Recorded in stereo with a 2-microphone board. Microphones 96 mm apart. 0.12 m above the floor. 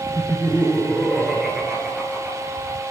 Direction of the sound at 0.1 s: 20° left (ahead or behind).